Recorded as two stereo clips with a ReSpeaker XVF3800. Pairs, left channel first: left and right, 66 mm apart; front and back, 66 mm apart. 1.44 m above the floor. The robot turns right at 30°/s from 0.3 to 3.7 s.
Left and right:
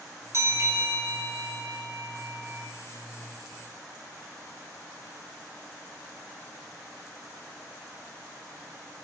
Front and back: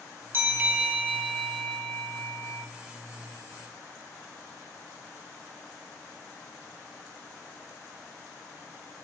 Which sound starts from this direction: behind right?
A bell, at 0.3 s.